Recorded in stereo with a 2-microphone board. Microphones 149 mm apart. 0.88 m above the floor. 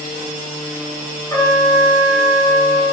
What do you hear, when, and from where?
1.3 s a trumpet: 20° left (ahead or behind), 0.6 m